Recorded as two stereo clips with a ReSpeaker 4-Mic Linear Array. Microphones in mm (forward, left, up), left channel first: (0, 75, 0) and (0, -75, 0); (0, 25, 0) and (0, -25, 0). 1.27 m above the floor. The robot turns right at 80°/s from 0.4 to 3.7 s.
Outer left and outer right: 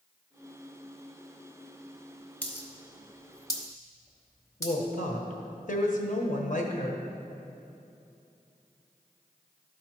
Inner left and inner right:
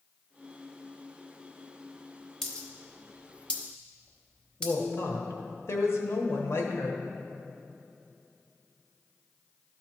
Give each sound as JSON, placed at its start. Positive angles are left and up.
{"t": 2.4, "sound": "a dropped coin", "side_deg": 10, "distance_m": 1.1}
{"t": 4.6, "sound": "a woman speaking", "side_deg": 60, "distance_m": 1.1}